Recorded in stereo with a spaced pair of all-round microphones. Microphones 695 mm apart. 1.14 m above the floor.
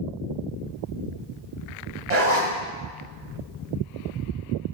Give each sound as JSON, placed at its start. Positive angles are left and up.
{"t": 2.1, "sound": "a zipper", "side_deg": -70, "distance_m": 2.5}